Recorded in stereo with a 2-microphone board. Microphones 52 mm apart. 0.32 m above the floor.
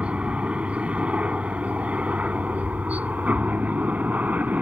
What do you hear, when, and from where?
0.0 s a helicopter: 20° right (ahead or behind); by 4.6 s 30° right (ahead or behind)